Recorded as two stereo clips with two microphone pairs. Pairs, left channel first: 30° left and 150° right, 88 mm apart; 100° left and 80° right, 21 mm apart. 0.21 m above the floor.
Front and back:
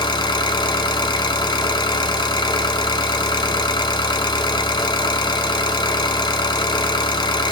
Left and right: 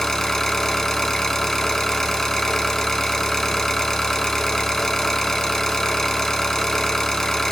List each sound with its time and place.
0.0 s an engine running: 30° left, 0.8 m